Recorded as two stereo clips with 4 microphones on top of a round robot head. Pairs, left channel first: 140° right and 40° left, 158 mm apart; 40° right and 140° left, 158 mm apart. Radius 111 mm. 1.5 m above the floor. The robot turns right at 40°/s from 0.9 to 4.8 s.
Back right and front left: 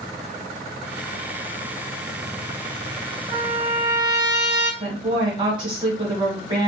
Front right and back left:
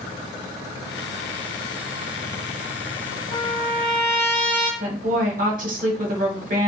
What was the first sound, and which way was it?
A trumpet, 5° right.